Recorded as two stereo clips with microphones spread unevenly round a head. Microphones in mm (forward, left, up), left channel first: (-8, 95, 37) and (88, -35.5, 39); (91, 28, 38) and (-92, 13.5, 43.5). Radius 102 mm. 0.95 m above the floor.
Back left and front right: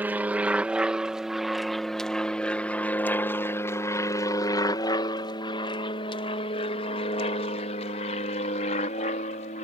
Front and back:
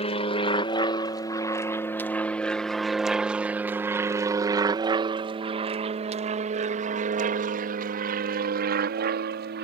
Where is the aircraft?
15° left; by 9.6 s 170° left.